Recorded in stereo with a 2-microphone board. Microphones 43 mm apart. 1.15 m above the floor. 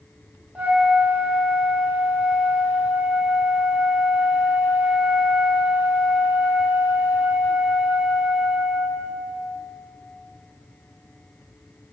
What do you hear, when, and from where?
0.6 s a flute: 35° right (ahead or behind), 1.9 m